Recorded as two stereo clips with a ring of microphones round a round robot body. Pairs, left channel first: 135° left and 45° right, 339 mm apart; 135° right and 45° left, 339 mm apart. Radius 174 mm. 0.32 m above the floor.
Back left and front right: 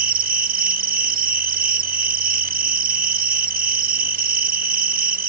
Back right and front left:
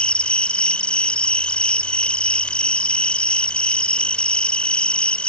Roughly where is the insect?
Ahead right.